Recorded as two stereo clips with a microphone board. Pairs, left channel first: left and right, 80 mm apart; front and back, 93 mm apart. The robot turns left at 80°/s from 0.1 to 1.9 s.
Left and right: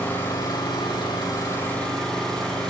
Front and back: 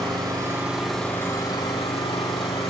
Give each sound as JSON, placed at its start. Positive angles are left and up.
{"t": 0.0, "sound": "an engine running", "azimuth_deg": 155, "distance_m": 3.0}